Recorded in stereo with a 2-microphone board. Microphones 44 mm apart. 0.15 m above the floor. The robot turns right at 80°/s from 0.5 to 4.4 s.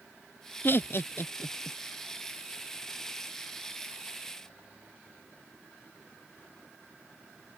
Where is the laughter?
45° left (ahead or behind); by 1.8 s 25° left (ahead or behind).